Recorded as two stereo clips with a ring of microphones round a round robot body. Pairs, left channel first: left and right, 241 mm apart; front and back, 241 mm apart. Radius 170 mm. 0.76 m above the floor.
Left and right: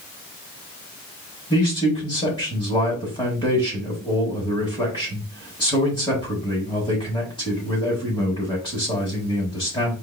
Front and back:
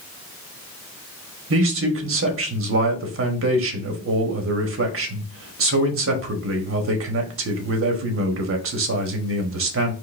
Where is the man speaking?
165° left, 1.3 m.